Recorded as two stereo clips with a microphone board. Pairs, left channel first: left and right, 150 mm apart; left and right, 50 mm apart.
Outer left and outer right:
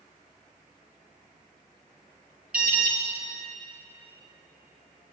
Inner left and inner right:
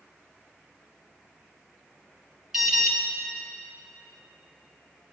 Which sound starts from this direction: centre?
An alarm, at 2.5 s.